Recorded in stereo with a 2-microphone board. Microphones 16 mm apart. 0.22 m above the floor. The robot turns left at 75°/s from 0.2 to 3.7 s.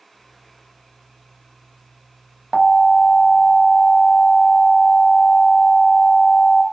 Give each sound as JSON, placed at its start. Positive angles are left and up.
{"t": 2.5, "sound": "an alarm", "side_deg": -15, "distance_m": 0.7}